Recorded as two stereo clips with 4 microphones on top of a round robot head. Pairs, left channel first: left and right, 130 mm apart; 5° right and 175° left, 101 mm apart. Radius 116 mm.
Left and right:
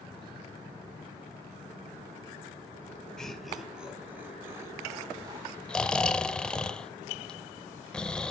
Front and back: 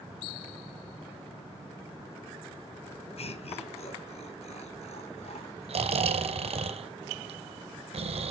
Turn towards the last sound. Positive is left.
turn(degrees=175)